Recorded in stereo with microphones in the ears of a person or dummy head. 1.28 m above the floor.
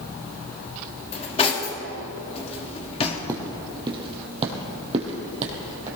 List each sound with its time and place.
1.1 s cutlery clinking: 30° left (ahead or behind), 1.6 m
3.3 s footsteps: 20° right (ahead or behind), 2.5 m; by 5.9 s 45° right (ahead or behind), 3 m